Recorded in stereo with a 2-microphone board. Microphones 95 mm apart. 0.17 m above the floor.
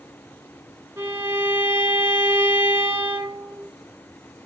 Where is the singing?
I don't hear singing.